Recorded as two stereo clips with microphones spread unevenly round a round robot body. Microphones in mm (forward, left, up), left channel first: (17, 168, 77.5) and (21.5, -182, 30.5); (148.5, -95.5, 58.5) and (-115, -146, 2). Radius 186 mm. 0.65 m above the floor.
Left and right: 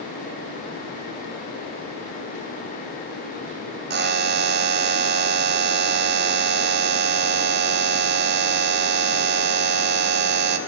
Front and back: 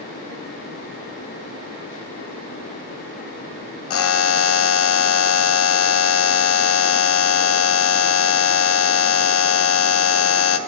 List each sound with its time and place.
3.9 s a buzzer: 35° right, 0.6 m